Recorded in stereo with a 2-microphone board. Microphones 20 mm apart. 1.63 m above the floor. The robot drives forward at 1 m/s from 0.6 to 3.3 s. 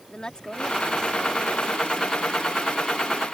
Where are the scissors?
I don't hear scissors.